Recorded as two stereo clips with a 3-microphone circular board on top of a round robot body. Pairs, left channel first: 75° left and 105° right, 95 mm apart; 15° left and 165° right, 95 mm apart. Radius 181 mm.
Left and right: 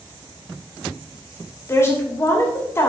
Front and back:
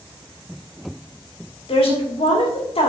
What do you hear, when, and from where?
1.7 s a woman speaking: 15° left, 2.5 m